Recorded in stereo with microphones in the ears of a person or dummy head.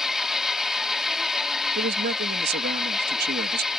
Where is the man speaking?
65° right (ahead or behind).